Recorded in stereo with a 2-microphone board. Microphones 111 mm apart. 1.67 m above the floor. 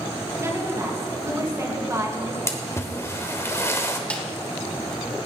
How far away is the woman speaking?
About 2.5 m.